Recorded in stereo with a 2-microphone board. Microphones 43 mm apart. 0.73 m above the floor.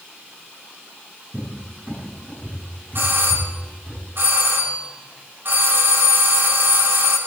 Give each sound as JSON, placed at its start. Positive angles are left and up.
{"t": 1.3, "sound": "a cupboard door", "side_deg": -30, "distance_m": 9.0}
{"t": 3.0, "sound": "a doorbell", "side_deg": -60, "distance_m": 5.0}